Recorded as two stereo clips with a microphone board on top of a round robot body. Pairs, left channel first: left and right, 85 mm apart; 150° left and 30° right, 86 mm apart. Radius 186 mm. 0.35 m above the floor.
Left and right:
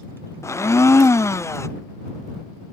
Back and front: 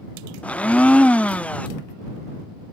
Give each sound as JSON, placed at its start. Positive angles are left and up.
{"t": 0.4, "sound": "a blender", "azimuth_deg": 90}